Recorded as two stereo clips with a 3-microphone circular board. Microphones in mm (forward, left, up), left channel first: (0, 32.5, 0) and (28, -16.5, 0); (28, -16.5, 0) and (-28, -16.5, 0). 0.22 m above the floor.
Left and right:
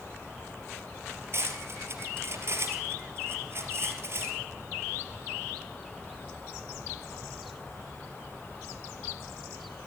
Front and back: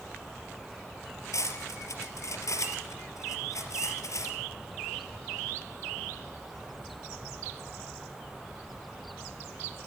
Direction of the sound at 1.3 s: 20° right.